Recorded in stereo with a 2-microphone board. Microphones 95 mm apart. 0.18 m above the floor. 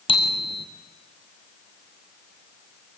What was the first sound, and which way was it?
A bicycle bell, 70° left (ahead or behind).